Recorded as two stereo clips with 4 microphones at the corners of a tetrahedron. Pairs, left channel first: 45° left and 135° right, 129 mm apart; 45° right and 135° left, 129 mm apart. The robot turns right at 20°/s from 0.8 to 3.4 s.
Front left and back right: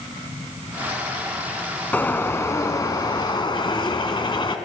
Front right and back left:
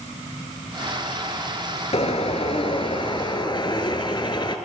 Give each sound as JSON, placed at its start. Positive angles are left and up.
{"t": 1.9, "sound": "a bird", "azimuth_deg": -30, "distance_m": 0.7}